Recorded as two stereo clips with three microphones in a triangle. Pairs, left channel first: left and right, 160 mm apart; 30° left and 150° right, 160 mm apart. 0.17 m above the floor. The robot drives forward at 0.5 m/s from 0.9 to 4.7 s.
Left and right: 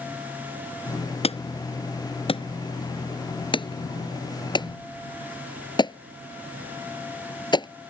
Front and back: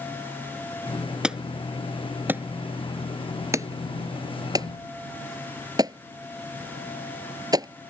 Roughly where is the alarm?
Behind left.